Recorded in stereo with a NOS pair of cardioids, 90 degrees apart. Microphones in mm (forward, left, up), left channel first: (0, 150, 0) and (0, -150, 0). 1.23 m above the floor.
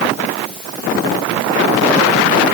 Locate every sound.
Only background noise.